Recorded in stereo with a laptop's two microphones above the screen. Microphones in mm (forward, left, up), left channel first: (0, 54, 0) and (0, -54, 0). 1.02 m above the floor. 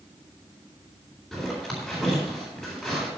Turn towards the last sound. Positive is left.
turn(degrees=0)  # may be behind; listen again after turning